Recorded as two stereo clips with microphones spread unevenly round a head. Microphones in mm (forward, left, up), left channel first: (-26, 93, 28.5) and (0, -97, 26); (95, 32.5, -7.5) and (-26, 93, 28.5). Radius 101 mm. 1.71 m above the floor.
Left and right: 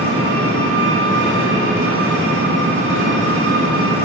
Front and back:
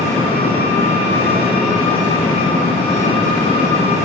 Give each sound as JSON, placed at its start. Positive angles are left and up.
{"t": 0.0, "sound": "an engine running", "azimuth_deg": -110, "distance_m": 2.5}